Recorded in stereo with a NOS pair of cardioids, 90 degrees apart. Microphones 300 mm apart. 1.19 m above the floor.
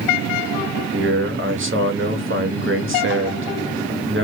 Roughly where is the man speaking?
Ahead right.